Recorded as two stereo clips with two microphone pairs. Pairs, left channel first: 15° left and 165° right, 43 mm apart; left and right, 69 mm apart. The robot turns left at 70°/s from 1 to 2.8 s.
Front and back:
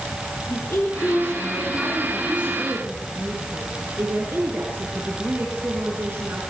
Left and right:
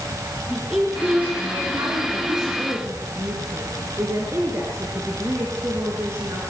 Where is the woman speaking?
10° right, 5 m; by 6.4 s 135° right, 5 m.